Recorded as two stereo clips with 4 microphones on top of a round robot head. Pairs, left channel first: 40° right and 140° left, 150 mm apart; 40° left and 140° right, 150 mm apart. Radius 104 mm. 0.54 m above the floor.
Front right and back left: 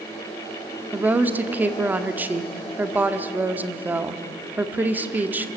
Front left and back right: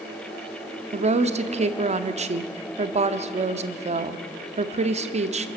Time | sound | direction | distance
0.9 | a woman speaking | 145° right | 1.2 m